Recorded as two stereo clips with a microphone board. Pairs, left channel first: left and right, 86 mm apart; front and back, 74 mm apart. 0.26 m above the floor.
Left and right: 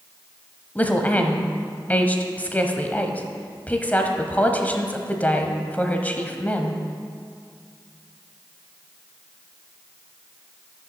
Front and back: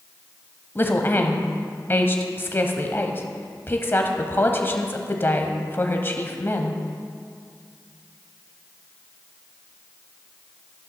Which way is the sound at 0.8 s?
35° left.